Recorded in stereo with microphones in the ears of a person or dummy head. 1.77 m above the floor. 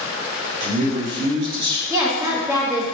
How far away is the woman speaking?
About 1.1 m.